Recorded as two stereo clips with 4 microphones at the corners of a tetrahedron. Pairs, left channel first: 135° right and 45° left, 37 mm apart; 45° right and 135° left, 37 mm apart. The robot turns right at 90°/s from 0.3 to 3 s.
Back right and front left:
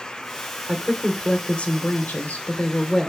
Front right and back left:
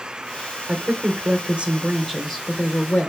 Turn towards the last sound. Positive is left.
turn(degrees=-60)